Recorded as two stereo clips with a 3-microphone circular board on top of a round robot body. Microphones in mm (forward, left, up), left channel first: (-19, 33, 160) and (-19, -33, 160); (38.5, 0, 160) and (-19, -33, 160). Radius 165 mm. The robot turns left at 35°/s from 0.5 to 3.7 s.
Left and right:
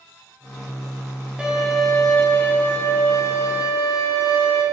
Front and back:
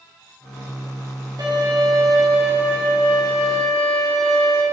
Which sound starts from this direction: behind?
A violin, at 1.4 s.